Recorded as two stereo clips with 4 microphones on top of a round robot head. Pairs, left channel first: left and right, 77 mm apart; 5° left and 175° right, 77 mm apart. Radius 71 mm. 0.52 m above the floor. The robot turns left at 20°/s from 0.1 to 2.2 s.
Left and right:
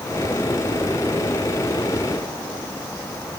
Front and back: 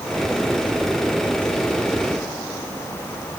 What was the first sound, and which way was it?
Only background noise.